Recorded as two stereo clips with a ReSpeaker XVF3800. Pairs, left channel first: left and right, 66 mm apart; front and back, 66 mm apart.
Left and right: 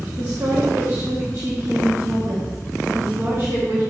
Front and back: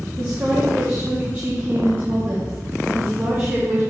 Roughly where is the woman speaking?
Behind right.